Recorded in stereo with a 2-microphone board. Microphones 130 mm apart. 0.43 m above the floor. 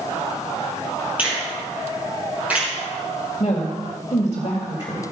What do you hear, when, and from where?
1.2 s a finger snap: 10° right (ahead or behind), 4.5 m
3.4 s a woman speaking: 40° left (ahead or behind), 1.9 m